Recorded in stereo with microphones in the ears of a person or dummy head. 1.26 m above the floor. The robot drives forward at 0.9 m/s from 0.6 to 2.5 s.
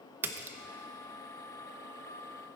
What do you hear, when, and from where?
0.2 s a splash: 15° right (ahead or behind), 0.7 m